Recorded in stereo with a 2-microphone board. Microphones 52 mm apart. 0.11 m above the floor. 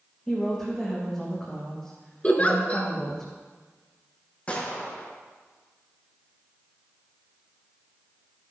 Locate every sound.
0.3 s a woman speaking: 10° left (ahead or behind), 7 m
2.2 s a giggle: 25° left (ahead or behind), 1.9 m
4.5 s a gunshot: 25° left (ahead or behind), 5.5 m